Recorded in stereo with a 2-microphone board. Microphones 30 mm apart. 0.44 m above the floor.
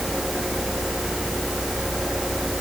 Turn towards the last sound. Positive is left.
No sound to turn to.